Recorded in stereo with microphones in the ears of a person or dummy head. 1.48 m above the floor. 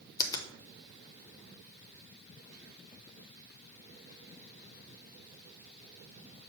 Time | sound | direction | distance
0.2 | a finger snap | 15° left (ahead or behind) | 0.8 m